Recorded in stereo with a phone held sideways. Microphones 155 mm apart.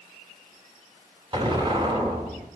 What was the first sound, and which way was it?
An explosion, 30° right (ahead or behind).